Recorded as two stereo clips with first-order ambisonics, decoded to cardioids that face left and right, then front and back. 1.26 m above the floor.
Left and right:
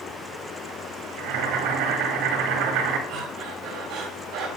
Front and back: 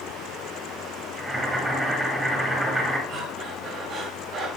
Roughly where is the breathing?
Behind right.